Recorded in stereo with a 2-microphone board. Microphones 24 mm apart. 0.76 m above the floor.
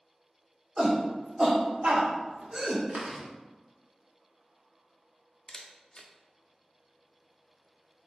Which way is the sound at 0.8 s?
25° right (ahead or behind).